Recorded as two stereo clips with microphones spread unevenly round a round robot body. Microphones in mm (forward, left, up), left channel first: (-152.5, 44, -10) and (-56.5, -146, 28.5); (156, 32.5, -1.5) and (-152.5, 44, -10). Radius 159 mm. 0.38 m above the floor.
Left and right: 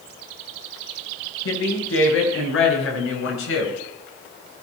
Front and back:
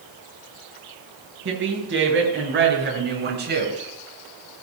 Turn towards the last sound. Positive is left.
turn(degrees=120)